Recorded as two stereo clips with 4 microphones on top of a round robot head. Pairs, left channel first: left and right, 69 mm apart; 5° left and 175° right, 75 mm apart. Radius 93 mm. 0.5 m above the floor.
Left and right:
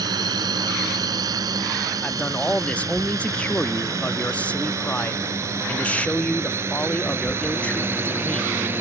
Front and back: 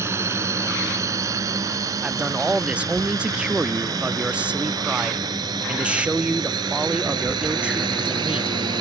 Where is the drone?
120° right; by 8.8 s 155° right.